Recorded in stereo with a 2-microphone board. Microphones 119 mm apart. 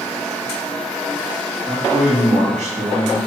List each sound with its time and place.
1.7 s a man speaking: 75° right (ahead or behind), 3 m